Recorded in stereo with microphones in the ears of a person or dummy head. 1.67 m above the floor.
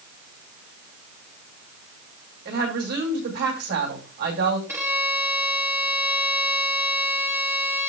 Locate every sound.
2.5 s a woman speaking: 50° right (ahead or behind), 5.5 m
4.7 s a violin: 10° right (ahead or behind), 3 m